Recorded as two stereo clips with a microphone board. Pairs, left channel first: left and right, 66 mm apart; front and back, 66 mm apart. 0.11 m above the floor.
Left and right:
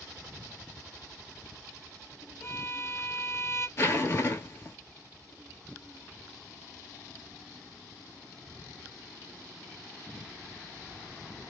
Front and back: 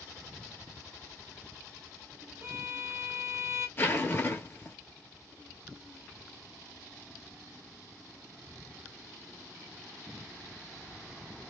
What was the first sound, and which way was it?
A violin, 135° left.